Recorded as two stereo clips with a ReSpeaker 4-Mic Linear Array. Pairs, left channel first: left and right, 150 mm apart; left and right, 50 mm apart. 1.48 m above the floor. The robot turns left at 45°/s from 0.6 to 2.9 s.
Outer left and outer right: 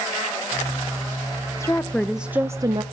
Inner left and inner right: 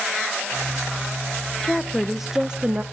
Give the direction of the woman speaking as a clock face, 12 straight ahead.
11 o'clock.